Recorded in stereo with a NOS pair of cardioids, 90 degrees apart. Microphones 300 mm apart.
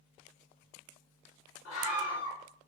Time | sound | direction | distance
1.6 | a scream | 55° left | 4.5 m